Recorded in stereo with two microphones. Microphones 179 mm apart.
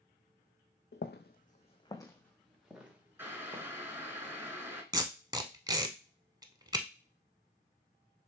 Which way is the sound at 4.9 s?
20° right (ahead or behind).